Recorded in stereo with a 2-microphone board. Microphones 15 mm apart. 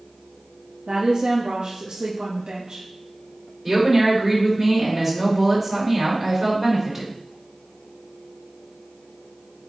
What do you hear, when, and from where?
0.9 s a woman speaking: 70° right (ahead or behind), 1.3 m
3.6 s a woman speaking: 10° right (ahead or behind), 4 m